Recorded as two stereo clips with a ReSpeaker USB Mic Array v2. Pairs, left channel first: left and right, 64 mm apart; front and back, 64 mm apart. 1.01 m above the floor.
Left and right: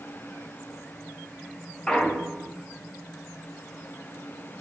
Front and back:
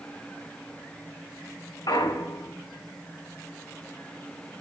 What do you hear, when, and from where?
1.9 s a clunk: 10° left, 0.9 m